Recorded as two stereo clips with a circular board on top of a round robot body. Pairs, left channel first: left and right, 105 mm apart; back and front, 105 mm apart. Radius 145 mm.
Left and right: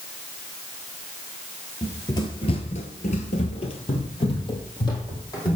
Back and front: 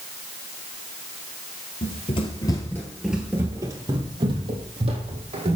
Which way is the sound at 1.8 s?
155° left.